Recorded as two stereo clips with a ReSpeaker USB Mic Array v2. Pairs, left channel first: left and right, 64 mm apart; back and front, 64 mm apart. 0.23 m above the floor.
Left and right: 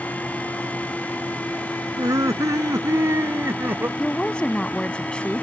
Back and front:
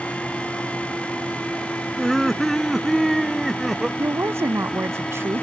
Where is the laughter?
95° right; by 3.9 s 85° right.